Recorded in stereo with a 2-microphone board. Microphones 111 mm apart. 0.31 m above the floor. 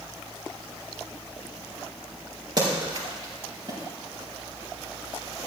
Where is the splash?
40° right (ahead or behind), 6 m.